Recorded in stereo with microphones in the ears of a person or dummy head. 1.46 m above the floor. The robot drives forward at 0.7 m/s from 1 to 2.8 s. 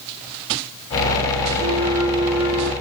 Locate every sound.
1.6 s a flute: 35° right (ahead or behind), 0.6 m; by 2.7 s 15° right (ahead or behind), 1.3 m